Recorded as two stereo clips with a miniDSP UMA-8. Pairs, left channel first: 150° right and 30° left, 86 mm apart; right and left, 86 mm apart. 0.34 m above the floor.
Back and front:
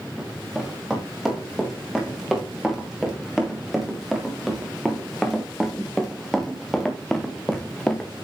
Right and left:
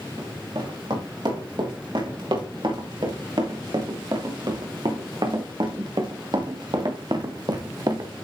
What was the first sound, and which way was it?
Running footsteps, 115° left.